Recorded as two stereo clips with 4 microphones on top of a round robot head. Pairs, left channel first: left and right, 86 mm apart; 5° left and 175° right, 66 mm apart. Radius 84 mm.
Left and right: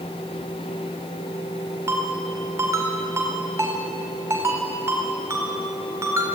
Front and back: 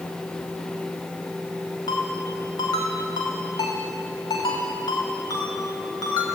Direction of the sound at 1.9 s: 30° right.